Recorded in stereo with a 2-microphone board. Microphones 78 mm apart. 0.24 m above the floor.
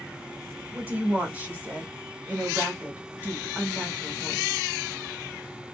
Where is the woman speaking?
20° right (ahead or behind), 1.4 m.